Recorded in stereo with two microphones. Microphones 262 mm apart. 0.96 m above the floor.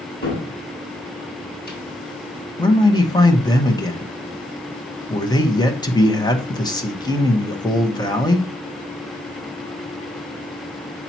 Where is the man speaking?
15° left (ahead or behind), 1.2 m.